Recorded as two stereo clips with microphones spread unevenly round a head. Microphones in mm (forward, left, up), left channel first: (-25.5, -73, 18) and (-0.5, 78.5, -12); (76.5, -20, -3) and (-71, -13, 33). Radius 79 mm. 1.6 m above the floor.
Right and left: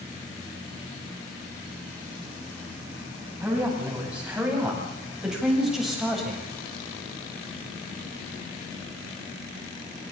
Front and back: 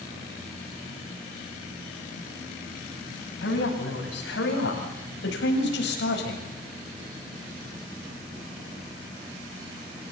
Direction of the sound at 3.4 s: Straight ahead.